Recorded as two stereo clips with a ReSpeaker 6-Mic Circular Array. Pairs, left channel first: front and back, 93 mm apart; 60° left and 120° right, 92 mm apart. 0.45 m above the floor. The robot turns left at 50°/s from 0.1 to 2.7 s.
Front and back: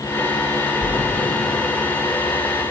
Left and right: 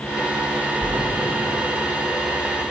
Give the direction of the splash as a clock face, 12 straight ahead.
12 o'clock.